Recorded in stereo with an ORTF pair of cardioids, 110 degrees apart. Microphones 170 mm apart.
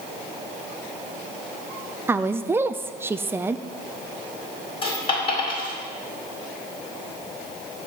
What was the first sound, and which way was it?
A woman speaking, 15° right.